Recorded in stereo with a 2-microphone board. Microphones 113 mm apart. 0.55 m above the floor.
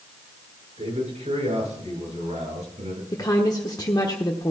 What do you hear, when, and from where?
0.8 s a man speaking: 70° right (ahead or behind), 7.5 m; by 3.0 s 85° right, 8 m
3.1 s a woman speaking: 35° left (ahead or behind), 1.1 m